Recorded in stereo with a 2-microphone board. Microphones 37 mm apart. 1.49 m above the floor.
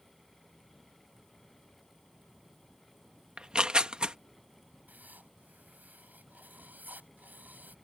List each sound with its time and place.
3.4 s tearing paper: 30° right (ahead or behind)
4.9 s writing: 55° right (ahead or behind)